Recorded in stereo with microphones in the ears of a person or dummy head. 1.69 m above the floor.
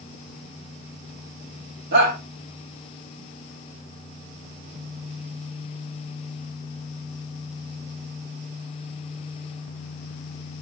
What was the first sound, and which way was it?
A shout, 55° right (ahead or behind).